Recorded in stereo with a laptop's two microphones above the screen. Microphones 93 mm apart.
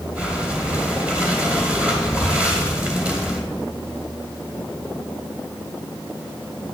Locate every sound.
0.1 s breathing: 15° right (ahead or behind), 2.5 m